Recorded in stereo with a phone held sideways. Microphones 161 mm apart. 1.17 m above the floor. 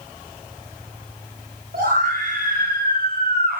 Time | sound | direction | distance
1.7 | a scream | 80° right | 8 m